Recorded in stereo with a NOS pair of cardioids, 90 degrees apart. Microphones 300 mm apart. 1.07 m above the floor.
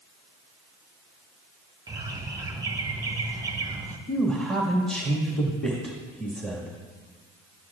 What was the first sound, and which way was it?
A bird, 10° right.